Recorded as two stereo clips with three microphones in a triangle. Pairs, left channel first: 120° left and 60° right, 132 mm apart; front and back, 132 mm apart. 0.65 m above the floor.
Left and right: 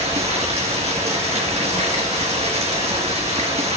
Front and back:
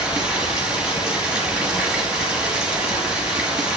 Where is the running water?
95° right, 3 m.